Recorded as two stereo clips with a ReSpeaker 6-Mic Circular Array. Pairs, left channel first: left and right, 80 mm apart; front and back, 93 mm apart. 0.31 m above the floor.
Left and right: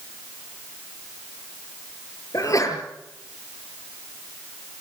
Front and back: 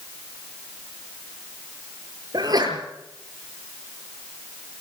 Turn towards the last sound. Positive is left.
turn(degrees=135)